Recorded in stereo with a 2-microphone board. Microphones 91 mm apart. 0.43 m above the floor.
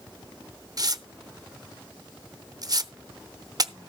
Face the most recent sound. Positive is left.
turn(degrees=-45)  # may be behind; listen again after turning